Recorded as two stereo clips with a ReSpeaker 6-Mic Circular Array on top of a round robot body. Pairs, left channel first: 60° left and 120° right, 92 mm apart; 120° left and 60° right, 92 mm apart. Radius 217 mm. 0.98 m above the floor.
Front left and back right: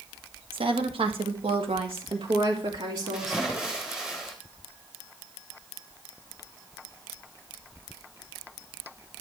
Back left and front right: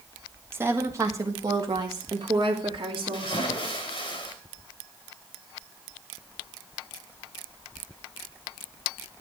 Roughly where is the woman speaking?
Behind right.